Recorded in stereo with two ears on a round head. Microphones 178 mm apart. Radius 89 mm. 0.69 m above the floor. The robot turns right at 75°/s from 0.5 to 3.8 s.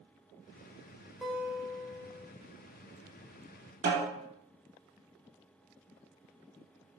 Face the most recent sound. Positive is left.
turn(degrees=-55)  # may be behind; listen again after turning